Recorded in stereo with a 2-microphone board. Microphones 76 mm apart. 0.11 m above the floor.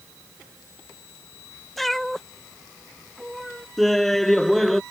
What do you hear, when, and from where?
1.8 s a cat meowing: 5° left (ahead or behind)
3.8 s laughter: 5° left (ahead or behind)